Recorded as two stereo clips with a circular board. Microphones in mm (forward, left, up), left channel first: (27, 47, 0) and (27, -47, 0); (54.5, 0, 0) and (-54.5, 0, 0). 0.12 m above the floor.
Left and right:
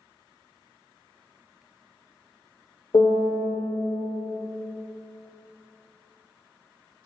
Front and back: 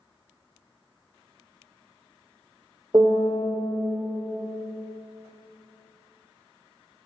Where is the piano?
125° left, 1.0 m.